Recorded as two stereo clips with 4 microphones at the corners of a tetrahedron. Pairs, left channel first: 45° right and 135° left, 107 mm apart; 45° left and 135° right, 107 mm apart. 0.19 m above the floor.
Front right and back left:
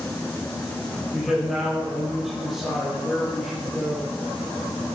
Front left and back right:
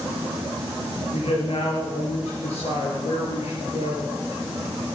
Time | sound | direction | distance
1.1 | a man speaking | 45° left | 5.5 m